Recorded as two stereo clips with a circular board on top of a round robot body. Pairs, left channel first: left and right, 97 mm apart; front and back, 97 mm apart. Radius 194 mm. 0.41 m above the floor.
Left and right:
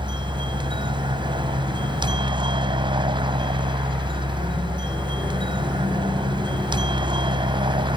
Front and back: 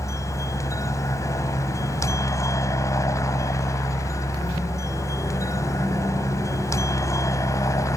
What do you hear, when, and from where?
0.0 s a helicopter: 55° right